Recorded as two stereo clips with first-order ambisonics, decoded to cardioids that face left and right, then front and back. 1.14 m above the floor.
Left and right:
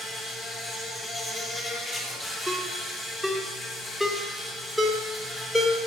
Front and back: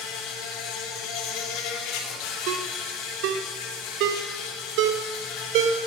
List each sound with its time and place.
0.0 s an insect: 20° left, 3 m
2.5 s a ringtone: 175° left, 1.5 m